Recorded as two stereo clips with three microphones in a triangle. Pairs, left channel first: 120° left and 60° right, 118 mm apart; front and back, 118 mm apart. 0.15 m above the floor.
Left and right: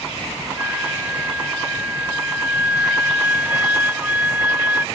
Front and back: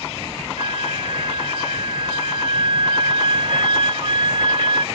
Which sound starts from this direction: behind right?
A flute, at 0.6 s.